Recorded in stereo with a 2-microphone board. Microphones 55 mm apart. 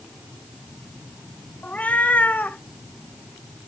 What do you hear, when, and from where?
1.6 s a cat meowing: 30° left (ahead or behind), 0.8 m